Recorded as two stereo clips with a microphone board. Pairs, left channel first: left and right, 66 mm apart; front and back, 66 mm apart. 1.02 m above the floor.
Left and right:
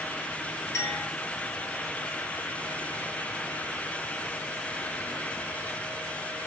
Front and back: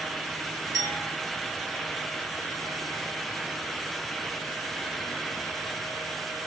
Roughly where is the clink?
Behind left.